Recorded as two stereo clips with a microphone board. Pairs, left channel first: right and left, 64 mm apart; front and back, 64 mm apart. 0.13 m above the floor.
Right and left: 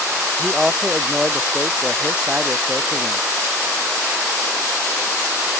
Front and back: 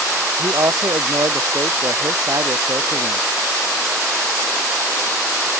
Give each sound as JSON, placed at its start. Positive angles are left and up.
{"t": 0.4, "sound": "a man speaking", "azimuth_deg": 170}